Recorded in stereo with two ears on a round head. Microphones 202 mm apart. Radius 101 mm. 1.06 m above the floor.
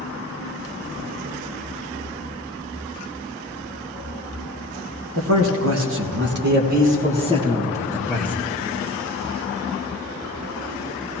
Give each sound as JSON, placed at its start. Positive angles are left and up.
{"t": 5.2, "sound": "a man speaking", "side_deg": -65, "distance_m": 1.8}